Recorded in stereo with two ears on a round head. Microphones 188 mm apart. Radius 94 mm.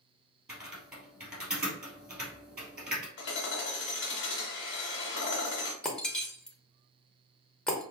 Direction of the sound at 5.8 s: 5° left (ahead or behind).